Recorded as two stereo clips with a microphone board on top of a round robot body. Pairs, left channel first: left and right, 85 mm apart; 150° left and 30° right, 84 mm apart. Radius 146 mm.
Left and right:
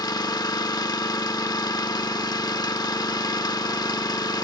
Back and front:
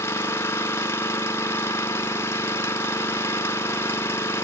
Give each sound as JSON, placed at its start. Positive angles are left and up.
{"t": 0.0, "sound": "an engine running", "azimuth_deg": 100, "distance_m": 1.1}